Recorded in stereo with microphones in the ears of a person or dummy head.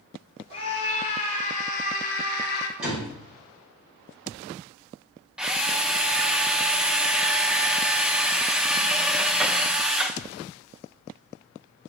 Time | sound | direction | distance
0.5 | a scream | 35° left (ahead or behind) | 3.5 m
2.8 | a door slam | centre (ahead or behind) | 6 m
5.4 | a drill | 10° right (ahead or behind) | 0.7 m